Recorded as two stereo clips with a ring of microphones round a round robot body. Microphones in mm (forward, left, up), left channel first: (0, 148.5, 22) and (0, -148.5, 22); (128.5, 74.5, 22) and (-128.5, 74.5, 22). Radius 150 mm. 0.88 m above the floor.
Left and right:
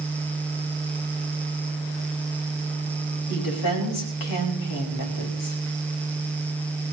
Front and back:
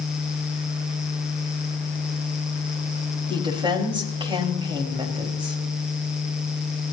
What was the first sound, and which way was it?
A woman speaking, 110° left.